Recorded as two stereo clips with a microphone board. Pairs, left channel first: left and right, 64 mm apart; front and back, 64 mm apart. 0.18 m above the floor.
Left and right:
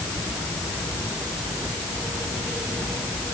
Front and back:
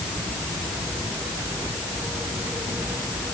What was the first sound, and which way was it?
Only background noise.